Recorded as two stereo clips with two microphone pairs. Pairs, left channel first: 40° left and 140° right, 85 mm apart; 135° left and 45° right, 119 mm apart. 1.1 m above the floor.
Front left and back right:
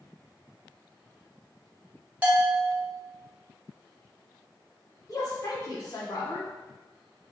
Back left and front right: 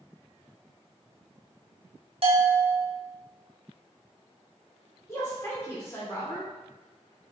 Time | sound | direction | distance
2.2 | a bell | 70° right | 0.6 m
5.1 | a woman speaking | 75° left | 1.0 m